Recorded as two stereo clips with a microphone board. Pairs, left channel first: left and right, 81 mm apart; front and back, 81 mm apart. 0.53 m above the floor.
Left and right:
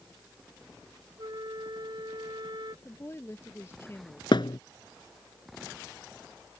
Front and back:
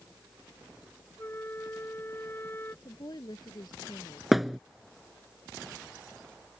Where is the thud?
90° left.